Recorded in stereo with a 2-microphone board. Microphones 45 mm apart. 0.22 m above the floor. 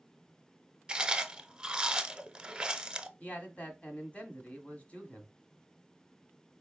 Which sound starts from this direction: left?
A man speaking, at 3.2 s.